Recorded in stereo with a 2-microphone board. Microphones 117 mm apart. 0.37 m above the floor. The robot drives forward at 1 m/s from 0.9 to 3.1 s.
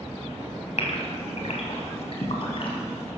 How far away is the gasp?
About 2.5 m.